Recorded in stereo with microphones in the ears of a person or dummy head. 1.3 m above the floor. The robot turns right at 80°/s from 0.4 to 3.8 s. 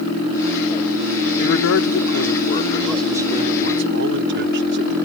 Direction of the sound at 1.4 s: 50° left.